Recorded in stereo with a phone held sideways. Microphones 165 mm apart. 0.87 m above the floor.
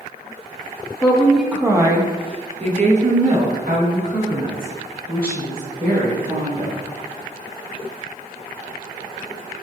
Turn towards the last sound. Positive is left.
turn(degrees=-70)  # may be behind; listen again after turning